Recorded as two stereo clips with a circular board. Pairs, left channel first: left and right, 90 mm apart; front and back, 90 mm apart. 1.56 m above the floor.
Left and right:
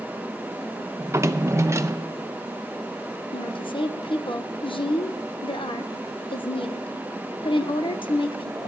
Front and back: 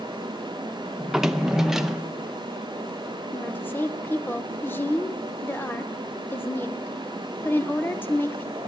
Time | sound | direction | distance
1.0 | a drawer | 100° right | 0.7 m
3.3 | a woman speaking | 70° left | 1.1 m